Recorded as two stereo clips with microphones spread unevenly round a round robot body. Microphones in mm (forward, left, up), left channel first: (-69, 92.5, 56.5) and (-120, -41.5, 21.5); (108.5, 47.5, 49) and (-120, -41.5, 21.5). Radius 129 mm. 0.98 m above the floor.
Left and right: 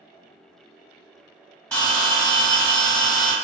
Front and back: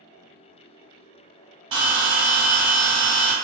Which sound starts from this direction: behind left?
A bell, at 1.7 s.